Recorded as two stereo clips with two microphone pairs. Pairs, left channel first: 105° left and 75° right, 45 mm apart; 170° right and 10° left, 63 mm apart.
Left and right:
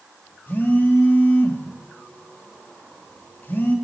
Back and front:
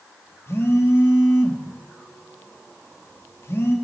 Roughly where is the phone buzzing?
Behind left.